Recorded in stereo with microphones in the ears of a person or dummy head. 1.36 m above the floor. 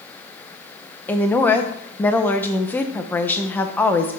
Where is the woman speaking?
10° left (ahead or behind), 0.7 m.